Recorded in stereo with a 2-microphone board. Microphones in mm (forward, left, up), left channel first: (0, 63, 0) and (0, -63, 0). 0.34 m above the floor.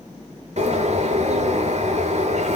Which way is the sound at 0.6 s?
65° right (ahead or behind).